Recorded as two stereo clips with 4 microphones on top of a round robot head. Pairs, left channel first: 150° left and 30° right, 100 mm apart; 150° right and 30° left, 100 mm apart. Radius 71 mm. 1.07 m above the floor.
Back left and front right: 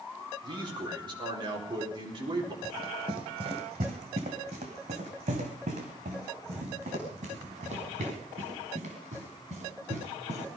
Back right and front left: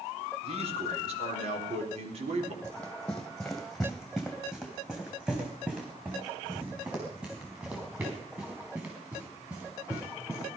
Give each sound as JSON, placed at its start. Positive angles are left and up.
{"t": 0.4, "sound": "a man speaking", "azimuth_deg": 10, "distance_m": 4.0}
{"t": 2.6, "sound": "running footsteps", "azimuth_deg": -75, "distance_m": 1.7}